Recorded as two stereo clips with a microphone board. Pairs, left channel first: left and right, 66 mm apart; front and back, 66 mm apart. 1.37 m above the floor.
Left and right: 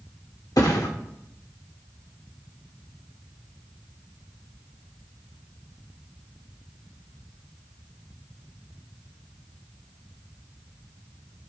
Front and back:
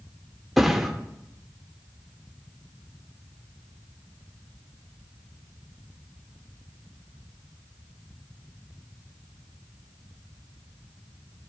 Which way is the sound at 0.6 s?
90° left.